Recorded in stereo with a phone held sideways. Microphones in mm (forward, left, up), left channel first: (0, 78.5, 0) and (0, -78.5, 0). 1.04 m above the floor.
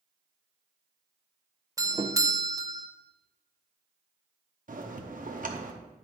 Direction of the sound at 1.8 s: 20° right (ahead or behind).